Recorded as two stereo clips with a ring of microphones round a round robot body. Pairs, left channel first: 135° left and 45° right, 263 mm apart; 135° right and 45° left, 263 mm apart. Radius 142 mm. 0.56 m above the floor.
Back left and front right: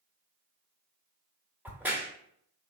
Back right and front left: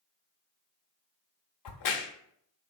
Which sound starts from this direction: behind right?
A crack, at 1.6 s.